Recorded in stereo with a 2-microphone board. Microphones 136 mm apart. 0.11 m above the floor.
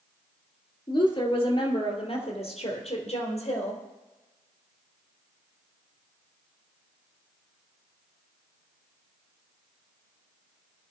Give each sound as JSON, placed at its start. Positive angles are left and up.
{"t": 0.9, "sound": "a woman speaking", "side_deg": 35, "distance_m": 2.5}